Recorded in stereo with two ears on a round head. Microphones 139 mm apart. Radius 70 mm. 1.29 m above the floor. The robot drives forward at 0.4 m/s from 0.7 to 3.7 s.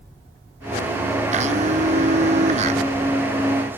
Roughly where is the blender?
Right.